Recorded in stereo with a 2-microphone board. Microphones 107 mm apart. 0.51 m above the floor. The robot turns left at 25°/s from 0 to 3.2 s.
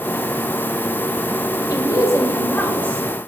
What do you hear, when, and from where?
1.7 s a woman speaking: 45° left, 2 m; by 3.1 s 10° left, 2 m